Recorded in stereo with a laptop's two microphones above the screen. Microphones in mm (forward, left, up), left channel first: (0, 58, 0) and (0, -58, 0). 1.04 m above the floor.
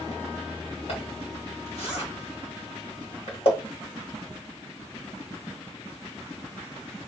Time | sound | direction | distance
0.9 | a zipper | 55° left (ahead or behind) | 1.2 m